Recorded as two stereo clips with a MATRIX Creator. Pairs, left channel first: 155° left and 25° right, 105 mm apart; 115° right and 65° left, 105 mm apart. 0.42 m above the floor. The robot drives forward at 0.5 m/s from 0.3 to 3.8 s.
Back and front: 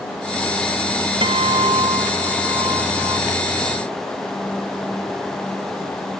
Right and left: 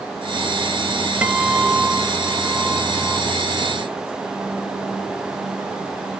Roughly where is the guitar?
Ahead.